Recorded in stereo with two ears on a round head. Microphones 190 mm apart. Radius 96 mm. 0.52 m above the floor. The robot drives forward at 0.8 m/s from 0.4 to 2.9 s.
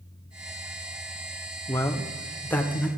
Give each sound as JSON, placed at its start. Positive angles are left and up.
{"t": 1.7, "sound": "a man speaking", "side_deg": 15, "distance_m": 0.7}